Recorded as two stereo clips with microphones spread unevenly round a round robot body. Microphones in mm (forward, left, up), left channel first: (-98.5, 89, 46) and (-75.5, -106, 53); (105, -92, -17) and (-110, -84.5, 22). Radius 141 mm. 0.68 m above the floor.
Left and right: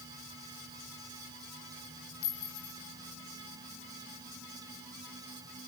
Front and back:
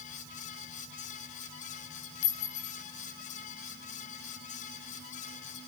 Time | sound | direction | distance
2.2 | a clink | 25° left | 4 m